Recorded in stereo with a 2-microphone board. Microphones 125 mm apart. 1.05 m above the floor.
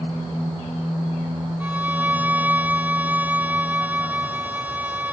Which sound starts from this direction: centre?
A violin, at 1.6 s.